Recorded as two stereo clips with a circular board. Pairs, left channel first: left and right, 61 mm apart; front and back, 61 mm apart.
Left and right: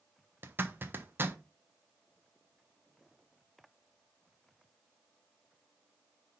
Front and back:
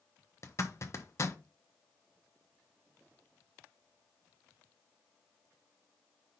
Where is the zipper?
35° right, 1.1 m.